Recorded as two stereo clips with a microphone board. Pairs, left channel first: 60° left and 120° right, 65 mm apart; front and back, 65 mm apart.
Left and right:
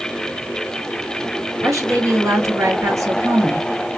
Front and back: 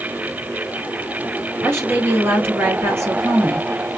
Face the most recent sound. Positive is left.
turn(degrees=-135)